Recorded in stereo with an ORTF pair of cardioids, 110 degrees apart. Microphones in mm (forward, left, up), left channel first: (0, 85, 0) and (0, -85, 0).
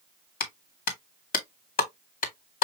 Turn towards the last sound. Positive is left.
turn(degrees=60)